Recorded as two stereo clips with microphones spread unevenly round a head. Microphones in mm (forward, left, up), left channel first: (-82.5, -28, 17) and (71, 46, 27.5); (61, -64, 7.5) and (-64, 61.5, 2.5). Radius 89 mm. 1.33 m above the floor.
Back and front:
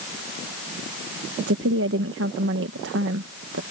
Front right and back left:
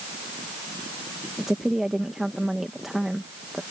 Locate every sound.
1.4 s a woman speaking: 45° left